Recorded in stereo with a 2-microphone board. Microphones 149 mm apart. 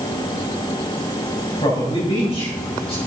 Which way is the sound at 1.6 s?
40° left (ahead or behind).